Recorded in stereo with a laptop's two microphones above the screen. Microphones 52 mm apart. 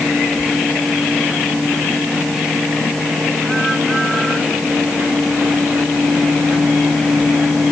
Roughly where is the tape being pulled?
I don't hear tape being pulled.